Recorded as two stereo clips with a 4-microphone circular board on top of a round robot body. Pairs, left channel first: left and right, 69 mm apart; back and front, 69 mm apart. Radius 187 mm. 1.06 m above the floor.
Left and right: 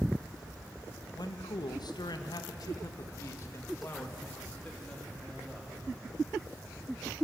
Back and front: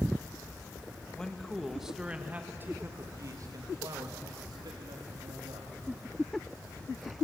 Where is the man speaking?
100° left, 1.9 m; by 5.8 s 10° left, 3.5 m.